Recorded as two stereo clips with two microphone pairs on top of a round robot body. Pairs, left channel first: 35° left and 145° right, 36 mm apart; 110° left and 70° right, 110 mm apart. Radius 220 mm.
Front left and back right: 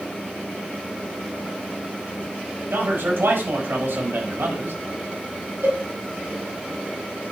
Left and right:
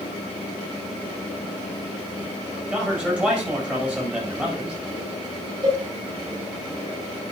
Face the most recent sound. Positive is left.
turn(degrees=-120)